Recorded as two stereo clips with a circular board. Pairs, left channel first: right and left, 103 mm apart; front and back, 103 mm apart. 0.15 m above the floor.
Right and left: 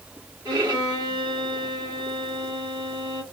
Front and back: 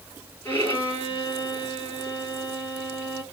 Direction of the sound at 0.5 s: 60° left.